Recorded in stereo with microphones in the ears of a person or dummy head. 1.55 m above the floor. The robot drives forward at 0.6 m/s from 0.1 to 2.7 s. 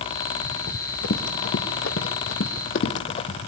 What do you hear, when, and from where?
0.7 s running footsteps: 55° left (ahead or behind), 3 m; by 3.4 s 35° left (ahead or behind), 2.5 m